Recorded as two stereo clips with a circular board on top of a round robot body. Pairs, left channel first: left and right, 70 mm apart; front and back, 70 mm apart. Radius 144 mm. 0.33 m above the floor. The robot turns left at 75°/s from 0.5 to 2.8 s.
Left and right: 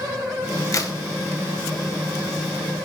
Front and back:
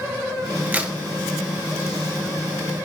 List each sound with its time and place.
0.7 s a crack: 120° left, 1.4 m; by 1.0 s 100° left, 1.4 m